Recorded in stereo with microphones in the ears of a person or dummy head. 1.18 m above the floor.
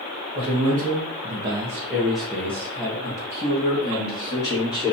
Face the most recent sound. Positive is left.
turn(degrees=25)  # may be behind; listen again after turning